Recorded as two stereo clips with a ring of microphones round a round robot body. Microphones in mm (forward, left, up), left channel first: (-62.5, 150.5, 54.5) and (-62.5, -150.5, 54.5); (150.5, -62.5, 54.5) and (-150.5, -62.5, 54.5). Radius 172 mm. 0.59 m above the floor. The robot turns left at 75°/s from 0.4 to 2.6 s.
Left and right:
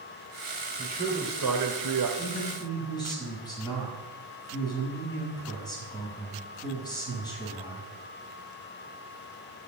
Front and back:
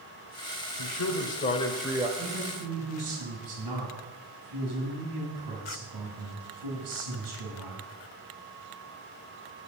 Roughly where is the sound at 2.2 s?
Behind.